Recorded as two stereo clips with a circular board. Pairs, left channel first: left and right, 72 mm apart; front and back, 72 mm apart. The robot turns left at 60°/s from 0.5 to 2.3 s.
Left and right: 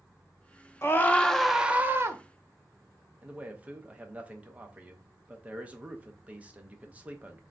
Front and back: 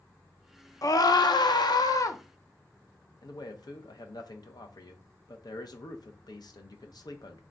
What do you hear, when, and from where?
0.8 s a scream: 40° left, 0.6 m; by 2.2 s 45° right, 0.6 m
3.2 s a man speaking: 20° right, 0.7 m